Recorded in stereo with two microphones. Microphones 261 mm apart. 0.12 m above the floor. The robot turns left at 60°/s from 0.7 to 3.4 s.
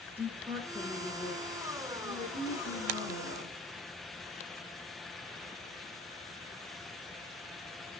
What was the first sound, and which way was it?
A woman speaking, 165° right.